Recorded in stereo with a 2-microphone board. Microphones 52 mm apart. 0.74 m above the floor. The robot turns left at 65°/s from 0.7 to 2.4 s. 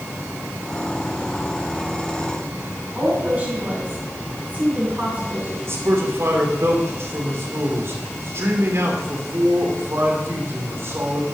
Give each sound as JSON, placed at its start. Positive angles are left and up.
{"t": 3.0, "sound": "a woman speaking", "side_deg": -30, "distance_m": 7.0}
{"t": 5.7, "sound": "a man speaking", "side_deg": -55, "distance_m": 3.0}